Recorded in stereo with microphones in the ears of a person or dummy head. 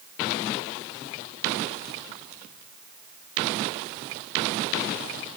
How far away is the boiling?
No boiling in this recording.